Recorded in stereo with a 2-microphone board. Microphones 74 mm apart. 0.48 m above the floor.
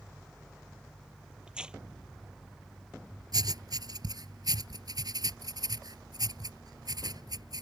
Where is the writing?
65° right (ahead or behind).